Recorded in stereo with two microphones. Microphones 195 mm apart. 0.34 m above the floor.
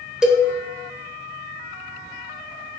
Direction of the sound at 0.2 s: 5° right (ahead or behind).